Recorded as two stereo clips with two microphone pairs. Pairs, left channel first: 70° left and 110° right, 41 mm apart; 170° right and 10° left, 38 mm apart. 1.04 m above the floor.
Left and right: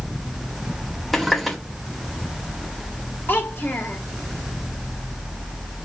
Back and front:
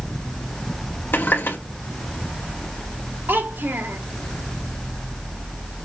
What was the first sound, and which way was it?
A running tap, 160° left.